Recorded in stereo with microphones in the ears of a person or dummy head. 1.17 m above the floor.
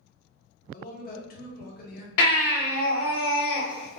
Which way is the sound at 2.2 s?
60° left (ahead or behind).